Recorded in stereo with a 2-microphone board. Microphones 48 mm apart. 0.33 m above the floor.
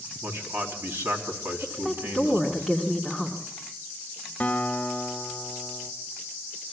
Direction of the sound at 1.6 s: 15° right (ahead or behind).